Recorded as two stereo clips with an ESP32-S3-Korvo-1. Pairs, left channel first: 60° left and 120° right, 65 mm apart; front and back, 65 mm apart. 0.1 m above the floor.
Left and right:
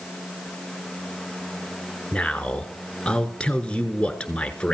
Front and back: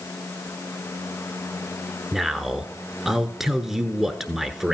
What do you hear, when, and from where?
2.1 s a man speaking: 105° left, 1.1 m